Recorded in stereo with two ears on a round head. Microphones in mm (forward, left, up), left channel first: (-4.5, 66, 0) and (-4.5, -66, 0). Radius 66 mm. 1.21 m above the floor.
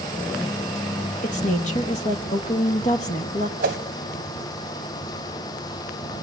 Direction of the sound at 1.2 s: 50° left (ahead or behind).